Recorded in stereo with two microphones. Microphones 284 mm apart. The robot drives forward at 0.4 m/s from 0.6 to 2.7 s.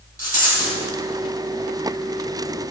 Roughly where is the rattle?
Right.